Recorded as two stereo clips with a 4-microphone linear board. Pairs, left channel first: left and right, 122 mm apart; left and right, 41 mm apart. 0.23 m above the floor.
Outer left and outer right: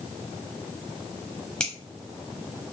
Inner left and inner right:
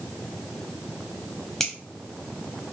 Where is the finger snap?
5° left (ahead or behind), 1.1 m.